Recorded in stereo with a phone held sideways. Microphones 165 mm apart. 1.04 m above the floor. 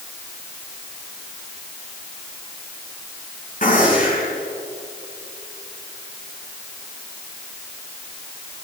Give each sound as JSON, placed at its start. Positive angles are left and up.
{"t": 3.6, "sound": "a gunshot", "side_deg": 55, "distance_m": 6.5}